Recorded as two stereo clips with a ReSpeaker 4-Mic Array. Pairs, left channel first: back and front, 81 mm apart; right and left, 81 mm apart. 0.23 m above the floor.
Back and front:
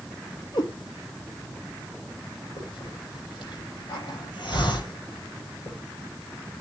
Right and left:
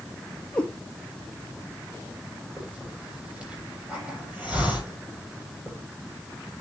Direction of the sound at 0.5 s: 160° right.